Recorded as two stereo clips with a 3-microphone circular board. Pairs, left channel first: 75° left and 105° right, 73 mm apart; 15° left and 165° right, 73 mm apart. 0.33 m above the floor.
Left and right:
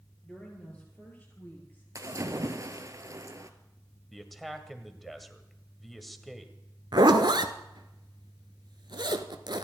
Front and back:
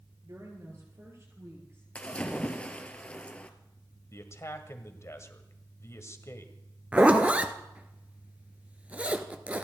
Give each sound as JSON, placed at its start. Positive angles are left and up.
{"t": 0.2, "sound": "a woman speaking", "azimuth_deg": 150, "distance_m": 7.0}
{"t": 1.9, "sound": "a splash", "azimuth_deg": -60, "distance_m": 1.4}
{"t": 4.1, "sound": "a man speaking", "azimuth_deg": -15, "distance_m": 1.7}
{"t": 6.9, "sound": "a zipper", "azimuth_deg": -95, "distance_m": 1.0}